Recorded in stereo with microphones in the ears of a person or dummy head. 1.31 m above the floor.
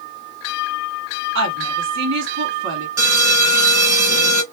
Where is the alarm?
20° right (ahead or behind), 2 m.